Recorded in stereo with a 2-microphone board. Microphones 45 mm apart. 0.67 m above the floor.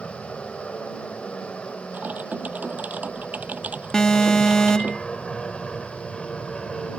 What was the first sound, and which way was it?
An aircraft, 25° left (ahead or behind).